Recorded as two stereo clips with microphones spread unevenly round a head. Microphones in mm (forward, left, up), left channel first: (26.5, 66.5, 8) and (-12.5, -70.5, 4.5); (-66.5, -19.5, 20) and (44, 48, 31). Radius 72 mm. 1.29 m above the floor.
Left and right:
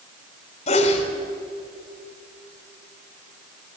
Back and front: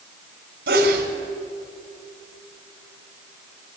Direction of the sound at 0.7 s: 25° left.